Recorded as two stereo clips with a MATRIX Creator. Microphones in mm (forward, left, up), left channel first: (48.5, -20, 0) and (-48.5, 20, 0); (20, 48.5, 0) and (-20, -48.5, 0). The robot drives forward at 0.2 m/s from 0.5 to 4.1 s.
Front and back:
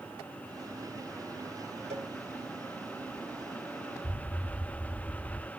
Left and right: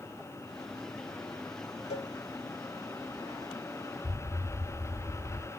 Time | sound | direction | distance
1.9 | a cowbell | 65° left | 2 m
4.0 | an explosion | 165° right | 1.0 m